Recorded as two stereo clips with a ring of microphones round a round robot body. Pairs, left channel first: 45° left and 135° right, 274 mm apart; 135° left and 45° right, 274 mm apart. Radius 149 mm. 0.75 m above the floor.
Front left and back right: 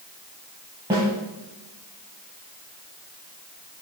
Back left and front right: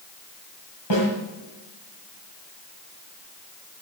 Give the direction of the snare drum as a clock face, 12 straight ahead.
7 o'clock.